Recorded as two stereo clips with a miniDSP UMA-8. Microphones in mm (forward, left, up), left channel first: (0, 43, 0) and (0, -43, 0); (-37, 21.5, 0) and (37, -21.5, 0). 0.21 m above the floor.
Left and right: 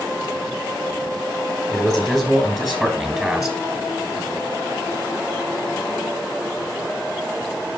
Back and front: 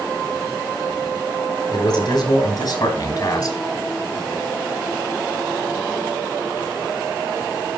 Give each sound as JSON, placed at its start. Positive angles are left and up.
{"t": 1.7, "sound": "a man speaking", "azimuth_deg": 170, "distance_m": 4.0}